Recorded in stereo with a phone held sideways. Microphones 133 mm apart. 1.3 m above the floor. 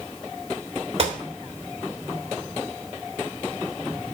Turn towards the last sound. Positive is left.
turn(degrees=-45)  # may be behind; listen again after turning